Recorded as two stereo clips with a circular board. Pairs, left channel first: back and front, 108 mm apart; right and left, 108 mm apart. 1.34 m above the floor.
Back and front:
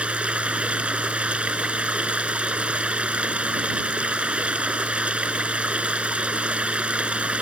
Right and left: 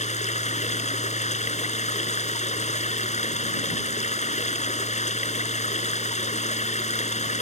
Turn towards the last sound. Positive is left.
turn(degrees=-80)